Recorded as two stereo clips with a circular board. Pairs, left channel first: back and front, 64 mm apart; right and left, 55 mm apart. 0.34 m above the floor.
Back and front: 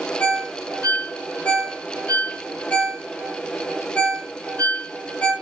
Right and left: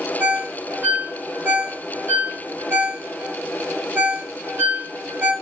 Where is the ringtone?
125° left, 1.4 m.